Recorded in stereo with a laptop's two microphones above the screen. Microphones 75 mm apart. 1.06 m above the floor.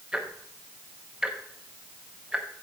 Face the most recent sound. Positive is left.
turn(degrees=-10)  # may be behind; listen again after turning